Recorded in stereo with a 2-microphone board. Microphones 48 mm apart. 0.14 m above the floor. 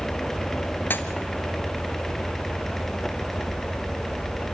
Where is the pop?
45° left (ahead or behind), 1.1 m.